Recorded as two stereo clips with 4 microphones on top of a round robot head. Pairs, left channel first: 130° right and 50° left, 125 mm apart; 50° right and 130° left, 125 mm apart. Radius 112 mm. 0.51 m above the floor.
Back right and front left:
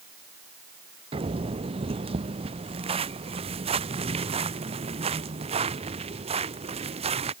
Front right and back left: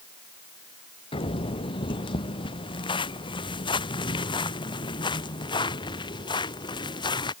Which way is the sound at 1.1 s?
Straight ahead.